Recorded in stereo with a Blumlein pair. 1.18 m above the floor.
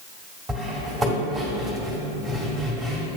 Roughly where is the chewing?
I don't hear chewing.